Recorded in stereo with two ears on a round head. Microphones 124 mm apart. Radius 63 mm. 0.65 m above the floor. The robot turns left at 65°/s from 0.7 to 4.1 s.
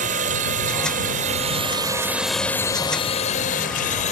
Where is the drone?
55° right (ahead or behind); by 4.1 s 50° left (ahead or behind).